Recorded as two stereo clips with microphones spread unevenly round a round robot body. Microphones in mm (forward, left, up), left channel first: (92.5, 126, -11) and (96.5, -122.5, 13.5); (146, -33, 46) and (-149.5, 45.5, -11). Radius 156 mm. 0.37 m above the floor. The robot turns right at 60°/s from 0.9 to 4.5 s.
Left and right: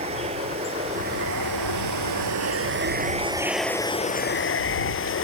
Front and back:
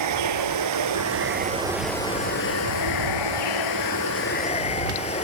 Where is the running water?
160° right; by 5.2 s 55° left.